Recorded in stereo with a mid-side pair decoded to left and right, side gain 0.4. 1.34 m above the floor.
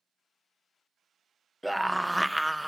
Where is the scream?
5° right, 0.7 m.